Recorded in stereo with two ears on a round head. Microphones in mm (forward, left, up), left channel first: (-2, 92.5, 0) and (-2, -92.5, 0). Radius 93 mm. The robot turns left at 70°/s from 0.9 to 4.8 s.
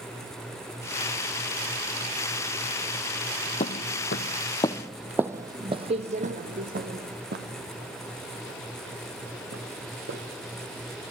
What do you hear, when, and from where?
3.6 s footsteps: 30° left (ahead or behind), 1.3 m; by 10.2 s 65° right (ahead or behind), 4 m